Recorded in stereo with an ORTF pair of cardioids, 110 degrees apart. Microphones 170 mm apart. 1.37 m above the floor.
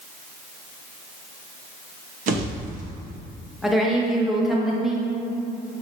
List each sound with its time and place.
2.3 s a pop: 50° right, 1.0 m
3.6 s a woman speaking: straight ahead, 0.9 m